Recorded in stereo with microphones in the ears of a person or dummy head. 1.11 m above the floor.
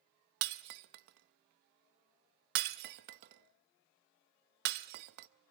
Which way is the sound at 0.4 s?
55° right (ahead or behind).